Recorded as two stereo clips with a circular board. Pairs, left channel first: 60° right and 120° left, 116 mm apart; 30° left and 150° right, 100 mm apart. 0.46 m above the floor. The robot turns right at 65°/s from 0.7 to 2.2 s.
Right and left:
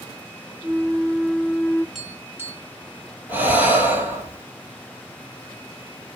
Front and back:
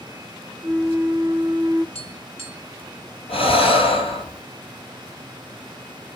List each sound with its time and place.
0.6 s a flute: straight behind, 0.7 m; by 1.9 s 105° right, 0.7 m
1.9 s tapping: 30° left, 2.5 m; by 2.6 s 50° left, 2.5 m
3.3 s breathing: 45° left, 2.5 m